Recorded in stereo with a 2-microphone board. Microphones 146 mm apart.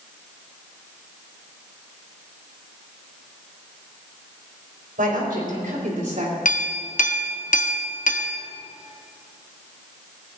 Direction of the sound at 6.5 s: 65° left (ahead or behind).